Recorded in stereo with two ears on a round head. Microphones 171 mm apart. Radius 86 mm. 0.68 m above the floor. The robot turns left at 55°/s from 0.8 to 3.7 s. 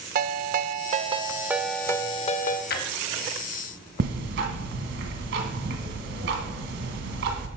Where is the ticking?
65° right (ahead or behind), 1.4 m.